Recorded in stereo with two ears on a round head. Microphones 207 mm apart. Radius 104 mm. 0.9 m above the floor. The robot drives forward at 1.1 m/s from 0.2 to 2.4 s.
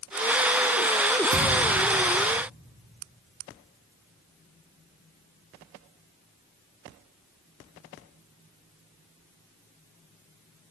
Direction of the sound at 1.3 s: 70° right (ahead or behind).